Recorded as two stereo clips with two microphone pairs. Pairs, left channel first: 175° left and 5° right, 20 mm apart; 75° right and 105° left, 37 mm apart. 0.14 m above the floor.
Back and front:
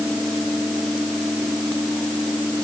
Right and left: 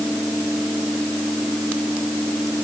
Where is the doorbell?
No doorbell in this recording.